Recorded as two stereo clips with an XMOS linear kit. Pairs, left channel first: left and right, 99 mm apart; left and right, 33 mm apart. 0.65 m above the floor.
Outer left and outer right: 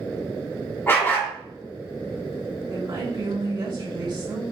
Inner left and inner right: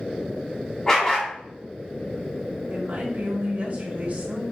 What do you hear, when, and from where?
0.9 s a dog barking: 20° left (ahead or behind), 1.9 m
2.7 s a woman speaking: 45° right (ahead or behind), 1.8 m